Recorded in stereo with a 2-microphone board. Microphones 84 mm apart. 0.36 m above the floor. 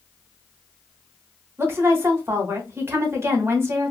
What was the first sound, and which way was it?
A woman speaking, 30° right (ahead or behind).